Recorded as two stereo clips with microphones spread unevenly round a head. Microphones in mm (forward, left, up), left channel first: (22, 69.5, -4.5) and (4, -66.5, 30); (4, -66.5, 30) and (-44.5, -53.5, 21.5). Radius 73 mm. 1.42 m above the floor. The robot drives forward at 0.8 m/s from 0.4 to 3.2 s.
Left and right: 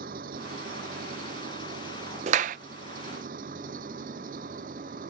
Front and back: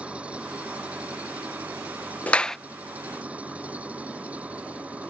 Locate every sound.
0.0 s an engine running: 130° right
2.3 s a clap: 70° right; by 2.6 s 95° right